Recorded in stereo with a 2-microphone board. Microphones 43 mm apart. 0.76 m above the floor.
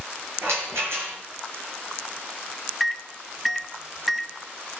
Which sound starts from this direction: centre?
A microwave, at 2.8 s.